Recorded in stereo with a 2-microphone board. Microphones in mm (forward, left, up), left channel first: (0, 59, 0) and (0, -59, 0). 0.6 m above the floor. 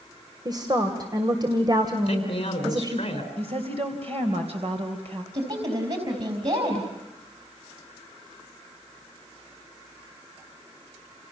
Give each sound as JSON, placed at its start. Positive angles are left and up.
{"t": 0.5, "sound": "a woman speaking", "side_deg": -35, "distance_m": 2.5}
{"t": 2.1, "sound": "a man speaking", "side_deg": 45, "distance_m": 5.0}
{"t": 3.4, "sound": "a woman speaking", "side_deg": -60, "distance_m": 3.0}
{"t": 5.3, "sound": "a woman speaking", "side_deg": -55, "distance_m": 4.0}